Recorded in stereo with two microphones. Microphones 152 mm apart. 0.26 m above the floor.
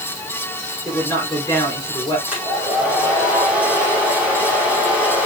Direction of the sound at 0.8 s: 20° left (ahead or behind).